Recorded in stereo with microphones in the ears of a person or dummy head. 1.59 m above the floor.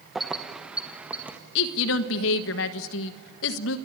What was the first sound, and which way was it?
Keys jangling, centre (ahead or behind).